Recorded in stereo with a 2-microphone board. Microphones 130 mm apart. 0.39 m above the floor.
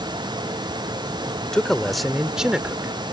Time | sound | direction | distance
1.4 | a man speaking | 5° left (ahead or behind) | ?